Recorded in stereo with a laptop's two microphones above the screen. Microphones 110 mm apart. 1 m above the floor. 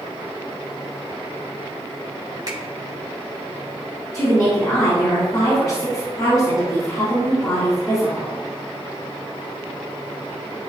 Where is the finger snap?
35° right (ahead or behind), 2.5 m.